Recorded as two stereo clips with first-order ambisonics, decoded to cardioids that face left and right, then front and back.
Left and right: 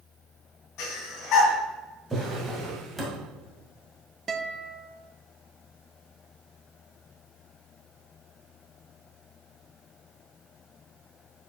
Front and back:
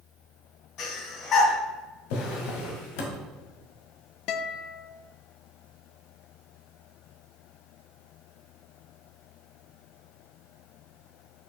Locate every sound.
0.8 s breathing: 55° left, 2 m
2.1 s a drawer: straight ahead, 1.8 m
4.3 s a guitar: 20° right, 0.6 m